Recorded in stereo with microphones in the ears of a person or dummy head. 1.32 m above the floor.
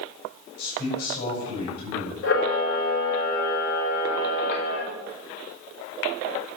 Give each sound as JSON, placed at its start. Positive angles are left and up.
{"t": 0.6, "sound": "a man speaking", "side_deg": 65, "distance_m": 7.0}
{"t": 2.2, "sound": "a camera shutter", "side_deg": 60, "distance_m": 5.0}